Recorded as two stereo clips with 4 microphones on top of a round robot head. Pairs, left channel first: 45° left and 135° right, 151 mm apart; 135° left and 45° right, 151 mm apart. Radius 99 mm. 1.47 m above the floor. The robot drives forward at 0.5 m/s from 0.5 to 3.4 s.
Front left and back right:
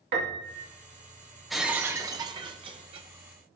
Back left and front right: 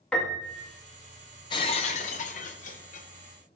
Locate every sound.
0.1 s a piano: 140° right, 2 m
1.5 s breaking glass: 135° left, 0.5 m; by 3.1 s 170° left, 1.0 m